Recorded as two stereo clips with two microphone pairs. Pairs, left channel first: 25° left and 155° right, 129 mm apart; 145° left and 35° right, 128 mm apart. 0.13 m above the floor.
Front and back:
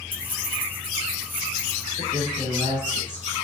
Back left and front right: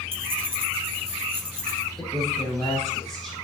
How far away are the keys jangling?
About 2.5 m.